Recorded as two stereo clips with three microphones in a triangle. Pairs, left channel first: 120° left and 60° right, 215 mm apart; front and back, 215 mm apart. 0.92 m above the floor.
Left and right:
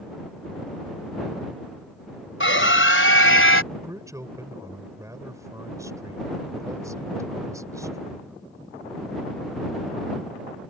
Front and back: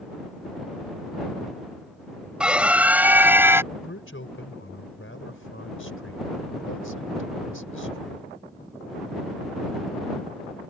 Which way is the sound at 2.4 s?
95° left.